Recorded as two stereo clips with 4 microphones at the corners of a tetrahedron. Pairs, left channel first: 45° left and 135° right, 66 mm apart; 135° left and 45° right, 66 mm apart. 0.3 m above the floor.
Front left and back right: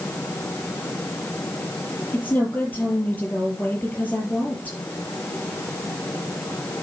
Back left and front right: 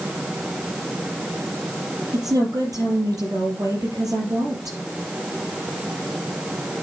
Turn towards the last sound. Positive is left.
turn(degrees=-15)